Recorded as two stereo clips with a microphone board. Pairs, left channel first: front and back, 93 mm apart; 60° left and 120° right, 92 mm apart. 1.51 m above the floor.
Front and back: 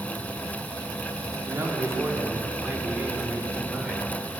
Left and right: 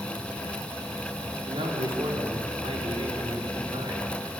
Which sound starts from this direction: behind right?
A man speaking, at 1.5 s.